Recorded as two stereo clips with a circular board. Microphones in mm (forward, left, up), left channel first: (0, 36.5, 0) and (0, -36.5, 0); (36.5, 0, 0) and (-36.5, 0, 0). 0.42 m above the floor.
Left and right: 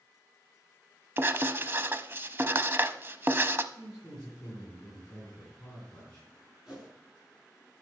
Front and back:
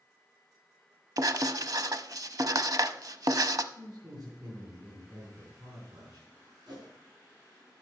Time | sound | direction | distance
1.2 | writing | 145° right | 0.6 m
3.7 | a man speaking | 170° left | 4.5 m
6.7 | a whoosh | 170° right | 5.5 m